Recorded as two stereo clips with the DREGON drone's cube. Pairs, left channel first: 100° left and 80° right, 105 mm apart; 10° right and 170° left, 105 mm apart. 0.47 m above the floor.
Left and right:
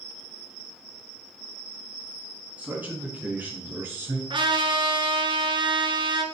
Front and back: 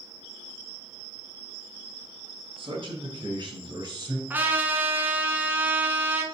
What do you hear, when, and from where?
2.6 s a man speaking: 155° right, 3 m; by 4.2 s 140° right, 2 m
4.3 s a trumpet: 115° right, 1.4 m